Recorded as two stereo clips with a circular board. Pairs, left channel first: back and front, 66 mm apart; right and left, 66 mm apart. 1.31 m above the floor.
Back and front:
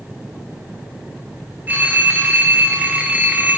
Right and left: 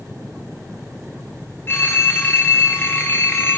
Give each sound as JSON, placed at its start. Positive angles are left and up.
{"t": 1.7, "sound": "a phone ringing", "azimuth_deg": -55, "distance_m": 0.8}